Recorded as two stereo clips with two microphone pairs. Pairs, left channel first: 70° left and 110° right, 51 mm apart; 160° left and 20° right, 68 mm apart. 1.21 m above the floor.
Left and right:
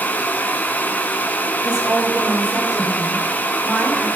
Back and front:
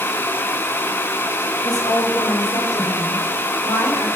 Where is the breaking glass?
I don't hear breaking glass.